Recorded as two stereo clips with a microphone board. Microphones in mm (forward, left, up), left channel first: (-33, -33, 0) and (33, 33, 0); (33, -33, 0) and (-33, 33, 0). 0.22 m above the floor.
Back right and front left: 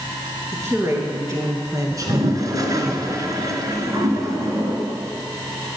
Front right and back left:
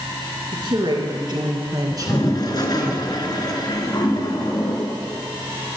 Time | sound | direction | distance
0.5 | a woman speaking | 105° left | 3 m
1.9 | a toilet flushing | 5° right | 1.2 m